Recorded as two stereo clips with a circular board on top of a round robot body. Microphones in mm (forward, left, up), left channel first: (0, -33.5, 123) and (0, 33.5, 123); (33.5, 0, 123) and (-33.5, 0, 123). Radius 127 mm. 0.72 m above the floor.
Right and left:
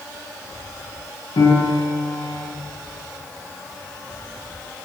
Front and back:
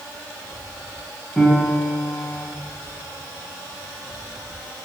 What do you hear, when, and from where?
1.4 s a piano: 85° right, 4 m